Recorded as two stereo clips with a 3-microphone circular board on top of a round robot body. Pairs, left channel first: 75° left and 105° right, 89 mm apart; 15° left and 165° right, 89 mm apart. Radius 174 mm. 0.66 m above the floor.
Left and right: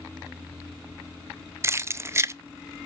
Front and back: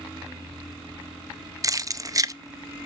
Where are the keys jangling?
145° right, 0.6 m.